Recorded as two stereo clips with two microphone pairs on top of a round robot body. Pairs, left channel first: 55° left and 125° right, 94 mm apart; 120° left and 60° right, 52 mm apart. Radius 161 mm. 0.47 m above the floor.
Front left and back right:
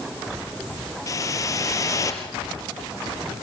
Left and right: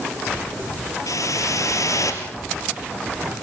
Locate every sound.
1.1 s a whoosh: 110° left, 3 m